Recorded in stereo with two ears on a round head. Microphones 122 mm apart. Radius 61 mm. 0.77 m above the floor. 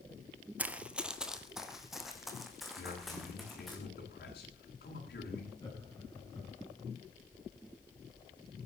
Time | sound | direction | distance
0.6 | running footsteps | 10° right (ahead or behind) | 0.8 m
2.8 | a man speaking | 80° left | 9.5 m
5.6 | laughter | 25° left (ahead or behind) | 6.5 m